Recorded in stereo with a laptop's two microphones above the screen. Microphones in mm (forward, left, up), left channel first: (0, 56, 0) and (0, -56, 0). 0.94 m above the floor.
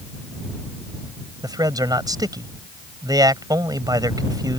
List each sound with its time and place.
1.4 s a man speaking: 35° right (ahead or behind)